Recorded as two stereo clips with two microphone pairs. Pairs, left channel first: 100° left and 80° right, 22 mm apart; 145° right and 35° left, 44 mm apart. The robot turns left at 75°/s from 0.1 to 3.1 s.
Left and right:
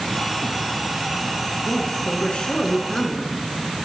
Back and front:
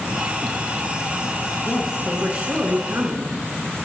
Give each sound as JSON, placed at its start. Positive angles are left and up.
{"t": 1.6, "sound": "a woman speaking", "azimuth_deg": 140, "distance_m": 2.0}